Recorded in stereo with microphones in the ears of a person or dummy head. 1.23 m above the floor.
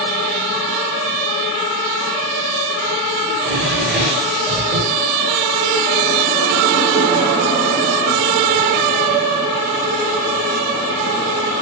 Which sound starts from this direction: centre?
A drawer, at 3.3 s.